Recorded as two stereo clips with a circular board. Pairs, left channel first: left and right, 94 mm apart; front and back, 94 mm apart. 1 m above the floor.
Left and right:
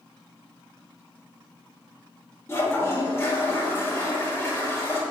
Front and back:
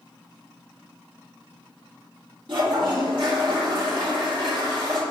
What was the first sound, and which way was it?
A toilet flushing, 150° left.